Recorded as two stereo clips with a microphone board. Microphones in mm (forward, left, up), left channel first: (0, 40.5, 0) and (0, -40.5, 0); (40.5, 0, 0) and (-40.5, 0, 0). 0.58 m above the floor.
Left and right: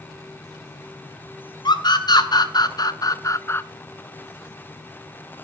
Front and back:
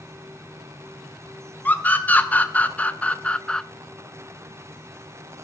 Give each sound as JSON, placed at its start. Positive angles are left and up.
{"t": 1.6, "sound": "a scream", "azimuth_deg": 70, "distance_m": 3.0}